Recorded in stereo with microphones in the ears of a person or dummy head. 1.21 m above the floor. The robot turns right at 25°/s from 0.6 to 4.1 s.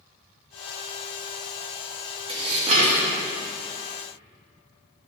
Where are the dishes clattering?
30° right (ahead or behind), 1.0 m; by 3.1 s 50° right (ahead or behind), 1.0 m.